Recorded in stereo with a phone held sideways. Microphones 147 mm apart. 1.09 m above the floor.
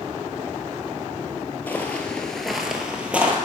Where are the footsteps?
10° left (ahead or behind), 1.3 m; by 3.4 s 10° right (ahead or behind), 1.6 m.